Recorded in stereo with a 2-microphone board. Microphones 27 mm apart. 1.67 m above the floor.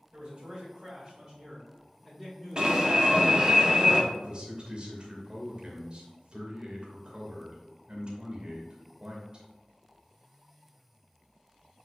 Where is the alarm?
35° right (ahead or behind), 1.2 m.